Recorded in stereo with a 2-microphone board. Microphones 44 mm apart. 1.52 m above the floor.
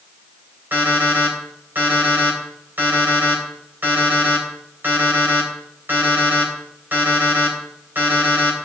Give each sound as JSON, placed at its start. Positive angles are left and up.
{"t": 0.7, "sound": "an alarm clock", "side_deg": -55, "distance_m": 4.0}